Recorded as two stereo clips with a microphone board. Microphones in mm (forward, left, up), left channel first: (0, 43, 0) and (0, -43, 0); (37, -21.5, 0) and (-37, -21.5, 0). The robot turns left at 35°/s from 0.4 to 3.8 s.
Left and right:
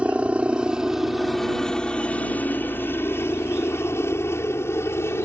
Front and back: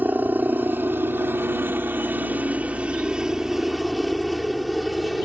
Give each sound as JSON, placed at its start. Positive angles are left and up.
{"t": 0.0, "sound": "a helicopter", "azimuth_deg": -150}